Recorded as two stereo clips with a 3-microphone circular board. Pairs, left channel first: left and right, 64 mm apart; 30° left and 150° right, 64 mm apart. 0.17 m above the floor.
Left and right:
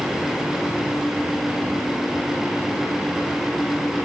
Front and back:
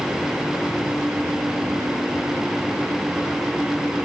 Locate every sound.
Only background noise.